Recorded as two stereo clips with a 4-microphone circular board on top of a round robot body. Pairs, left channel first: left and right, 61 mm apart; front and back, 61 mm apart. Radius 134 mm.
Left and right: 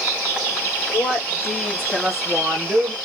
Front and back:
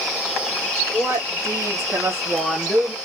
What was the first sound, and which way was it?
A woman speaking, 150° left.